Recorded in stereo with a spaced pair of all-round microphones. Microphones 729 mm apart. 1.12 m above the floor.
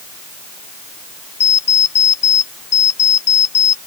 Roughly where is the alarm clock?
Left.